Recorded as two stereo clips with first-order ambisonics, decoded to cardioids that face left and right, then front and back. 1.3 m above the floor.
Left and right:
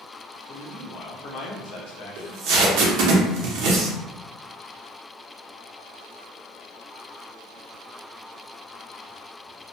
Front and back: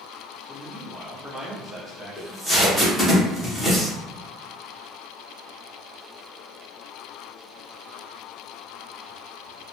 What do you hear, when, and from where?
0.5 s a man speaking: 110° left, 0.7 m
2.2 s tape being pulled: 90° right, 0.7 m